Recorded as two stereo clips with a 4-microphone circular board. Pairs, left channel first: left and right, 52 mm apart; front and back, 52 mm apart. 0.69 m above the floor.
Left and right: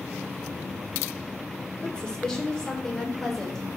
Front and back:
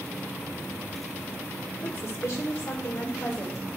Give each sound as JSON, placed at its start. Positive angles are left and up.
{"t": 1.8, "sound": "a woman speaking", "azimuth_deg": 20, "distance_m": 2.0}